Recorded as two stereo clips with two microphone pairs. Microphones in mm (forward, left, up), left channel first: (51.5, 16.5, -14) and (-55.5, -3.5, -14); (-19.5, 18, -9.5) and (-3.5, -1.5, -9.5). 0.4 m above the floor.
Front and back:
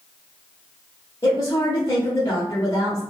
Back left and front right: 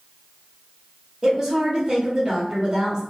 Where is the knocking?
No knocking in this recording.